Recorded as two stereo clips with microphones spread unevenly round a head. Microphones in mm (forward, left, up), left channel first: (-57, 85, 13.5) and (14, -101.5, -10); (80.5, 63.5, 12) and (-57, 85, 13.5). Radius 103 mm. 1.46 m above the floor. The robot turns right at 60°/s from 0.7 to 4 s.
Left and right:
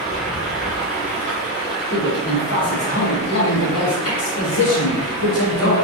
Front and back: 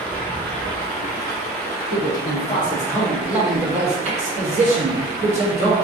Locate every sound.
0.0 s running water: 75° right, 1.3 m; by 5.8 s 120° left, 1.3 m
1.9 s a man speaking: 5° left, 1.4 m; by 5.7 s 135° left, 1.4 m